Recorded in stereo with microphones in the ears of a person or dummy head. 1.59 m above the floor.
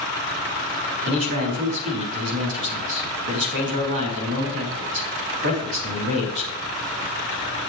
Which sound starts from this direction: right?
A man speaking, at 1.1 s.